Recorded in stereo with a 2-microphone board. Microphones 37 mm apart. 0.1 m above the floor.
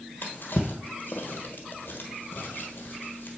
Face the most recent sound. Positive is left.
turn(degrees=65)  # may be behind; listen again after turning